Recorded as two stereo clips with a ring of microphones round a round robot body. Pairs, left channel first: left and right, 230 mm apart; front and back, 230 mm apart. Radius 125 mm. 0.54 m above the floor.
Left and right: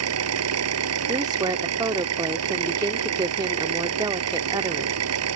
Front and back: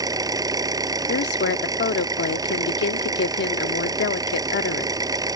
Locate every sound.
0.0 s an engine running: 105° right
1.1 s a woman speaking: 20° right